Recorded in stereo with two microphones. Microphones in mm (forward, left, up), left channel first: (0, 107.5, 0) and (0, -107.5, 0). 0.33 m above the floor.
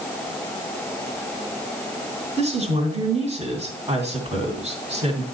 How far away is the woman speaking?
About 2.5 m.